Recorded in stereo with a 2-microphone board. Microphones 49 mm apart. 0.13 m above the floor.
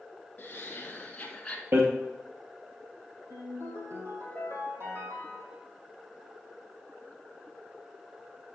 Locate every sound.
0.4 s laughter: 30° left (ahead or behind), 1.4 m; by 1.6 s 15° left (ahead or behind), 1.0 m
1.7 s hammering: 50° right (ahead or behind), 2 m
3.3 s a ringtone: 60° right (ahead or behind), 3 m